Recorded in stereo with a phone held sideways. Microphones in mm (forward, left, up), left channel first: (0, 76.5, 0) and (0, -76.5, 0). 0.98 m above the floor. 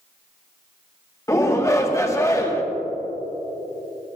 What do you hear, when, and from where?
1.3 s a shout: 20° left (ahead or behind), 1.3 m